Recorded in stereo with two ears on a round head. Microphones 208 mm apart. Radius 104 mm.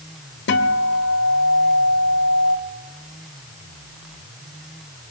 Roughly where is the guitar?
Left.